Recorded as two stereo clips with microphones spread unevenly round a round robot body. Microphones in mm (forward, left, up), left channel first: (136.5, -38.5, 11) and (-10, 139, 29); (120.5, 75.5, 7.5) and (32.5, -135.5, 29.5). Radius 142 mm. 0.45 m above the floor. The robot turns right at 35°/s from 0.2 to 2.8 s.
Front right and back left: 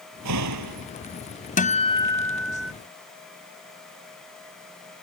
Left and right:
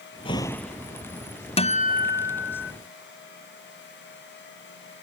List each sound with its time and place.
0.2 s a door slam: 140° left; by 0.9 s 165° left
1.6 s a guitar: 5° left; by 2.7 s 45° left